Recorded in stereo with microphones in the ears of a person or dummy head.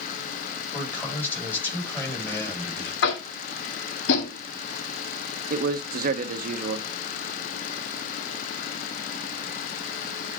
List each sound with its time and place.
0.7 s a man speaking: 10° left (ahead or behind), 7 m
3.0 s tapping: 65° left (ahead or behind), 1.7 m
5.5 s a man speaking: 50° right (ahead or behind), 1.1 m